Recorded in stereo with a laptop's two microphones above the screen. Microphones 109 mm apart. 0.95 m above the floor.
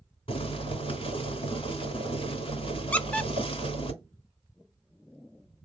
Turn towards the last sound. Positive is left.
turn(degrees=10)  # may be behind; listen again after turning